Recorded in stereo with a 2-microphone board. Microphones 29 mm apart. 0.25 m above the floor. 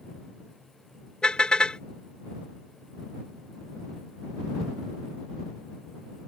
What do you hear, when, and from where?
1.2 s a car horn: 30° left (ahead or behind)